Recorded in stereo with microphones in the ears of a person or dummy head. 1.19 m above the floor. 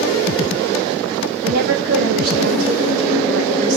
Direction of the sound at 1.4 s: 55° right (ahead or behind).